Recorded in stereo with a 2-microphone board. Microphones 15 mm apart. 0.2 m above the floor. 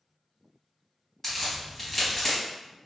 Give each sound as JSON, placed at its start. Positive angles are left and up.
{"t": 1.2, "sound": "a crack", "side_deg": 20, "distance_m": 1.1}